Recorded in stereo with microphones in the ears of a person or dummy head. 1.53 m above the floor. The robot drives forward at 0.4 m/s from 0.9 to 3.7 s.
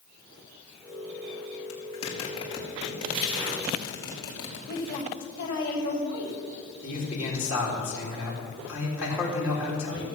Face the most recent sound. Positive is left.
turn(degrees=-10)  # may be behind; listen again after turning